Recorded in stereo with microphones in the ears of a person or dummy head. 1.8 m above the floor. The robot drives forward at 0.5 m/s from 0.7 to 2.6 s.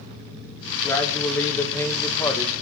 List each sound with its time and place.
0.8 s a man speaking: 10° left (ahead or behind), 3 m; by 2.5 s 15° left (ahead or behind), 2.0 m